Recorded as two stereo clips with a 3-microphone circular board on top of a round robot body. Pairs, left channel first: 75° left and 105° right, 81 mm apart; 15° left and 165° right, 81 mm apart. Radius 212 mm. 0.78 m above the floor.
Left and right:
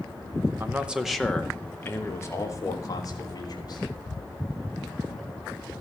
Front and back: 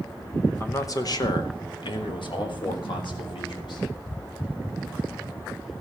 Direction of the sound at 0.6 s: 40° right.